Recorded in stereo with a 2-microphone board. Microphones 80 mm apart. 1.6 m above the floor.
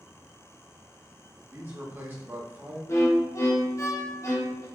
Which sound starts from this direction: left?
A violin, at 2.9 s.